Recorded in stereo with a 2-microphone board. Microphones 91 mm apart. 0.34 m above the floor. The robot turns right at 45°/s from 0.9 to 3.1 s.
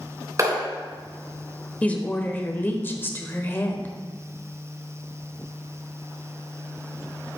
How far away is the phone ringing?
No phone ringing in this recording.